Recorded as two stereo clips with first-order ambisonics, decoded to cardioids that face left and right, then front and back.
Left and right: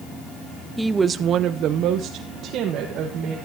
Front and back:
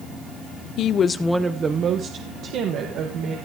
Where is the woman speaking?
5° right, 0.6 m; by 3.4 s 140° right, 1.9 m.